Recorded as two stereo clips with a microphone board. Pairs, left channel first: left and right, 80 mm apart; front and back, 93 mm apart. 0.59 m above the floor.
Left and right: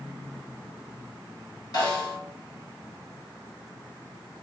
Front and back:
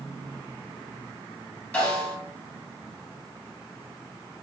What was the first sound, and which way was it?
A snare drum, 75° left.